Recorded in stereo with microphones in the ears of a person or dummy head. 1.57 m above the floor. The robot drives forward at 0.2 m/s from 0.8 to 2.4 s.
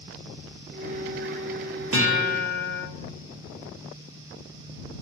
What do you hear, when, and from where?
1.9 s a guitar: 65° right (ahead or behind), 0.5 m; by 2.8 s 55° right (ahead or behind), 0.6 m